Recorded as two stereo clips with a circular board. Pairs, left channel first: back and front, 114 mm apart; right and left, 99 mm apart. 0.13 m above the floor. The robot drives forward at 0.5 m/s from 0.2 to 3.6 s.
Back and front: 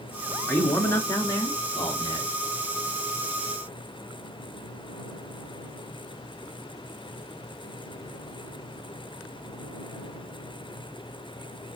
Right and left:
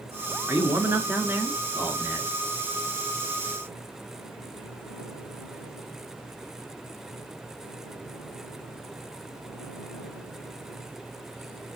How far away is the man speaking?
About 1.2 m.